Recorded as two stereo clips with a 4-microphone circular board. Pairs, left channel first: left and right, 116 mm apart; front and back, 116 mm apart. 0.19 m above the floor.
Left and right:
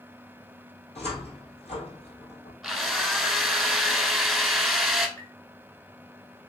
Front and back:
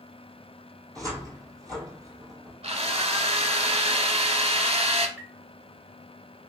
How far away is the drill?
About 0.9 m.